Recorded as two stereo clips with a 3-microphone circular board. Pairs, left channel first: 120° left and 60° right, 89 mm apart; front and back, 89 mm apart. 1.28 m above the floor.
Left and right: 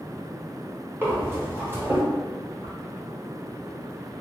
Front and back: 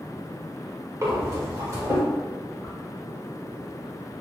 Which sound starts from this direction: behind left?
A whoosh, at 2.6 s.